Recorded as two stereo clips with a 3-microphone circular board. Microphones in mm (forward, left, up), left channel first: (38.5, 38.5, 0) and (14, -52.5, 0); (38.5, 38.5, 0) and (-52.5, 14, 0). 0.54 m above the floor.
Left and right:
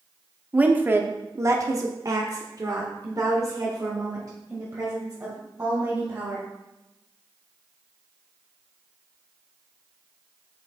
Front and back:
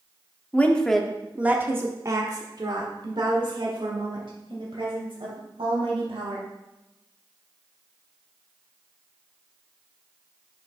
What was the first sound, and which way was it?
A woman speaking, 45° right.